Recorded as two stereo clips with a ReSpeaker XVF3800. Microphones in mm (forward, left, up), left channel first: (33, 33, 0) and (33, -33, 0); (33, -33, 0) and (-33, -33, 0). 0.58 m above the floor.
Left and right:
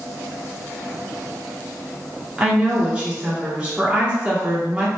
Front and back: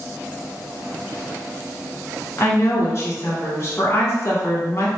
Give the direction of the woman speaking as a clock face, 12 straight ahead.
1 o'clock.